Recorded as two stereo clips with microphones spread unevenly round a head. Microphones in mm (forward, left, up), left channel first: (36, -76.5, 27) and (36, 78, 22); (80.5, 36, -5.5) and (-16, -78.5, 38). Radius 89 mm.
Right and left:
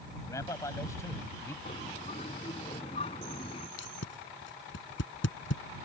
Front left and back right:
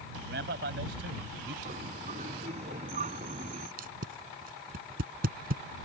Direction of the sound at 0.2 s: 165° right.